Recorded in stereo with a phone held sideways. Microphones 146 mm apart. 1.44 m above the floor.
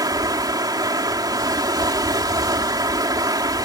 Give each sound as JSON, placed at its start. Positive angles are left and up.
{"t": 0.0, "sound": "running water", "side_deg": -25}